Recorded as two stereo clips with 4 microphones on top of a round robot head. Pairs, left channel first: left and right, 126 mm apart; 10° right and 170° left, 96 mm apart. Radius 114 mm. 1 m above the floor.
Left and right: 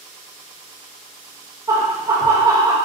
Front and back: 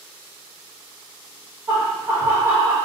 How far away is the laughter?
About 1.0 m.